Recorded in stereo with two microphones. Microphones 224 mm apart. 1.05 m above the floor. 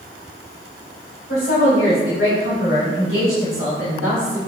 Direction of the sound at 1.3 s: 65° left (ahead or behind).